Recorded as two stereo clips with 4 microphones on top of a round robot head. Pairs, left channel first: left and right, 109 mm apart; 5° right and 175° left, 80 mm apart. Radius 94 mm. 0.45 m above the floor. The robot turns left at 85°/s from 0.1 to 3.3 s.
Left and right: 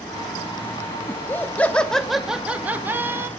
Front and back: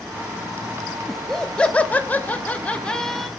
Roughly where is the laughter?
Left.